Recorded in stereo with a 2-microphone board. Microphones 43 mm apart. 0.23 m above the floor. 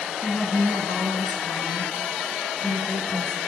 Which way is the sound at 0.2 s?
10° left (ahead or behind).